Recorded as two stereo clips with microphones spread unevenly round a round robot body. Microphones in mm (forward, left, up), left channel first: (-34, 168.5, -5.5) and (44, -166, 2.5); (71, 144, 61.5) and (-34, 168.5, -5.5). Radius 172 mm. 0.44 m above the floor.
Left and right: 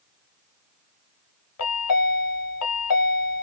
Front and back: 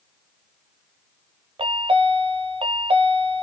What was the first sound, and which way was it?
A chime, 150° left.